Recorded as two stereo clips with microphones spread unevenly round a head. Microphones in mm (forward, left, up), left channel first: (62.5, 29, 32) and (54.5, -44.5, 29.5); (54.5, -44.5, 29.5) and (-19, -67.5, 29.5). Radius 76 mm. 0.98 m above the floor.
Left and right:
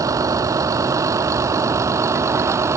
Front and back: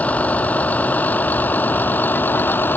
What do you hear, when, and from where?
0.0 s a vehicle: 55° right; by 2.8 s 45° right